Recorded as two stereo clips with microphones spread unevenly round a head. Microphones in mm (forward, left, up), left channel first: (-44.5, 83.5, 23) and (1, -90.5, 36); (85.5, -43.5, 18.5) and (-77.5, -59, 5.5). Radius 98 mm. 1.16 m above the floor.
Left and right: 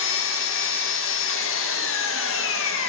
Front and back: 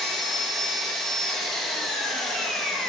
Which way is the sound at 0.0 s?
95° left.